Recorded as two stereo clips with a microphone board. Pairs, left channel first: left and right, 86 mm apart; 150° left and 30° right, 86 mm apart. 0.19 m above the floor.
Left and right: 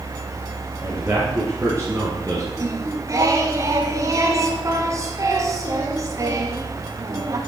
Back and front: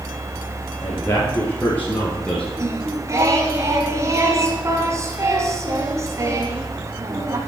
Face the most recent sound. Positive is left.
turn(degrees=-65)